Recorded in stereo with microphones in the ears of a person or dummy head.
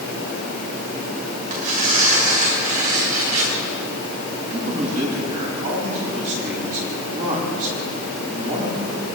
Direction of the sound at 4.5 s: 40° right (ahead or behind).